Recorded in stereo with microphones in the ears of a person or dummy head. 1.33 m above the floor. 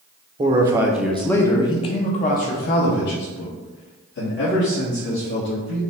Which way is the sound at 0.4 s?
30° right (ahead or behind).